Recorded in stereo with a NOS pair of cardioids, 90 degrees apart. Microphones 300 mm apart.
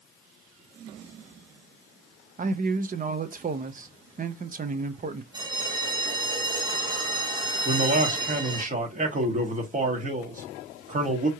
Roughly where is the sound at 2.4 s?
Ahead right.